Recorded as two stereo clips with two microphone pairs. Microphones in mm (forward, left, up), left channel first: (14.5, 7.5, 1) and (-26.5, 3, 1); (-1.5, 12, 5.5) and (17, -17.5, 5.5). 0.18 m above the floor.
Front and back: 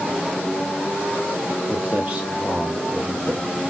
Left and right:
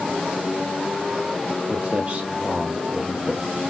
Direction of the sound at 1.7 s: 105° right.